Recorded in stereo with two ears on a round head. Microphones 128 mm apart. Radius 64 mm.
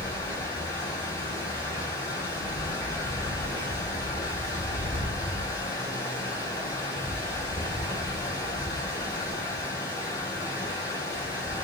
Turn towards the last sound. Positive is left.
turn(degrees=20)  # may be behind; listen again after turning